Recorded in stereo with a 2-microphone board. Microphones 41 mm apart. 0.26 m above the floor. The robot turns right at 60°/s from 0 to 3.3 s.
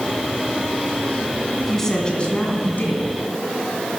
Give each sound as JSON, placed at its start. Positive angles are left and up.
{"t": 1.6, "sound": "a woman speaking", "azimuth_deg": -5, "distance_m": 2.0}